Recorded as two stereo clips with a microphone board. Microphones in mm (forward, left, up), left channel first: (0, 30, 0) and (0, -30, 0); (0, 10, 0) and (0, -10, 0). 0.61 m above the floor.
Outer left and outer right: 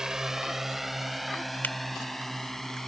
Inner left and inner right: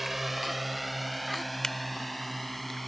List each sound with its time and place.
0.0 s a drone: 10° right (ahead or behind); by 2.9 s 5° left (ahead or behind)
1.6 s a finger snap: 30° left (ahead or behind)